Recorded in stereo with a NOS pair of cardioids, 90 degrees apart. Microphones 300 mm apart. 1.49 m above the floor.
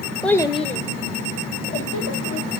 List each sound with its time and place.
0.2 s a child speaking: straight ahead, 0.8 m; by 2.5 s 50° left, 2.5 m